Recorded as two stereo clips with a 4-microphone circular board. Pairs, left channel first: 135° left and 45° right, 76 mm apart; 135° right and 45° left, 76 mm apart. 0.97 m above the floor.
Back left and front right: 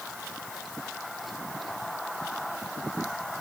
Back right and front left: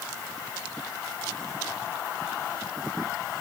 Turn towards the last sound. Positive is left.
No sound to turn to.